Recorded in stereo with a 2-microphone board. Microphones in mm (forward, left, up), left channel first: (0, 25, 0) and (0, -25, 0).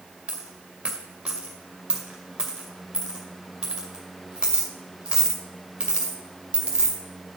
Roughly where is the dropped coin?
Centre.